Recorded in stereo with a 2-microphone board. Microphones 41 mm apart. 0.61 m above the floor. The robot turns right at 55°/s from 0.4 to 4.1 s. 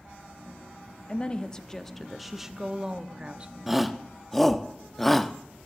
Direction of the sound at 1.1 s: 120° left.